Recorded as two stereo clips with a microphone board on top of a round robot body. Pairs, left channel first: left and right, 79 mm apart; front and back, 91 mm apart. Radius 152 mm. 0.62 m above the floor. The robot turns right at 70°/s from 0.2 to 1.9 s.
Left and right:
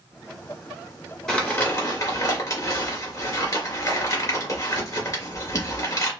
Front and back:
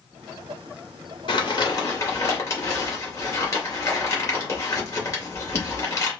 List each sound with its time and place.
1.3 s crumpling: 10° left, 2.5 m; by 6.1 s 50° left, 2.5 m